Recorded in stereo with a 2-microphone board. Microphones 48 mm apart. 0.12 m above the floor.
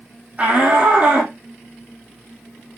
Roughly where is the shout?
Right.